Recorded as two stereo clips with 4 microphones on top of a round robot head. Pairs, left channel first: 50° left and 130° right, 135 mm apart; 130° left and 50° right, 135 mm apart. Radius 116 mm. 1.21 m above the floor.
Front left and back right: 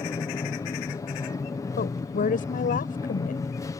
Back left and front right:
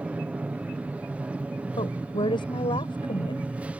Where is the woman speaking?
75° left.